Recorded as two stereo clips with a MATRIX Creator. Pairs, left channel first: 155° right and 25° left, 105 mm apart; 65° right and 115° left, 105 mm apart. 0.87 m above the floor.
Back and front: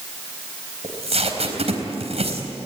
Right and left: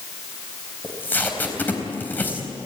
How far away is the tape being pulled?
About 4 m.